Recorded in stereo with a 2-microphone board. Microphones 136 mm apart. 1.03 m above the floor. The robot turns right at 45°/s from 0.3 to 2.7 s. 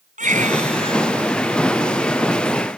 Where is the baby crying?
75° right; by 1.1 s 40° right.